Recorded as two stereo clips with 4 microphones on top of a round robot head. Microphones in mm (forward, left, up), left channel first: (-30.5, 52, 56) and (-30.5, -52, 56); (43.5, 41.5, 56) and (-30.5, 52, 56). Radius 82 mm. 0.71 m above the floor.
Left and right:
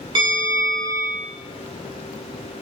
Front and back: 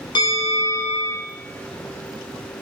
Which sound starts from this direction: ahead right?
A bell, at 0.1 s.